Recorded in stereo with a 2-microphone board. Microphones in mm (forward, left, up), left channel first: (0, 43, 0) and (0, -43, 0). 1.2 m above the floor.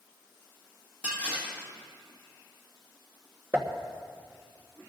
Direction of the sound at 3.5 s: 25° right (ahead or behind).